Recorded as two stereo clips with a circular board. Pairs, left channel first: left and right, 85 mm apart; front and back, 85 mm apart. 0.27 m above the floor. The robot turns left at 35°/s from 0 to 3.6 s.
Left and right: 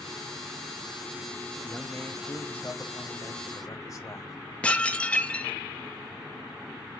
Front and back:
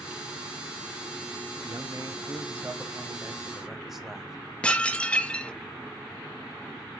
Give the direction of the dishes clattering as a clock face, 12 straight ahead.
11 o'clock.